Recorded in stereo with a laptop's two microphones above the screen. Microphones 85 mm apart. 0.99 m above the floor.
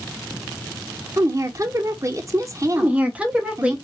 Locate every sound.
1.2 s a woman speaking: 40° right (ahead or behind), 0.6 m
2.8 s a woman speaking: 15° right (ahead or behind), 0.6 m